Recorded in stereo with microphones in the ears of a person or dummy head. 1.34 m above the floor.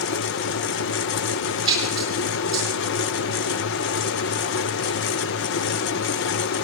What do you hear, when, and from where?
1.7 s a splash: 25° right (ahead or behind), 6.5 m